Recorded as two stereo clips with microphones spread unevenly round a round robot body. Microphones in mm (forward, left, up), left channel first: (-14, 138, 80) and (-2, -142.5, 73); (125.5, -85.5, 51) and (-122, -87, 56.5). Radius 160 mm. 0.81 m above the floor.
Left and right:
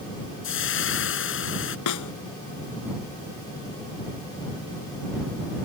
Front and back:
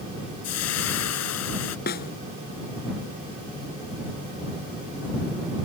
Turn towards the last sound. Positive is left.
turn(degrees=65)